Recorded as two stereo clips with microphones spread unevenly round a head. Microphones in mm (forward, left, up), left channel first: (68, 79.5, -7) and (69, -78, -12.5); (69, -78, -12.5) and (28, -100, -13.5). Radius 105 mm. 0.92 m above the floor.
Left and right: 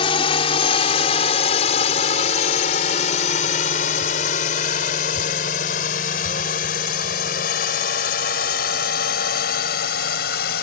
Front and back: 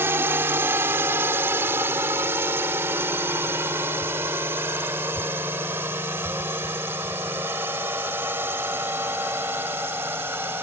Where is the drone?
155° left; by 10.6 s 135° left.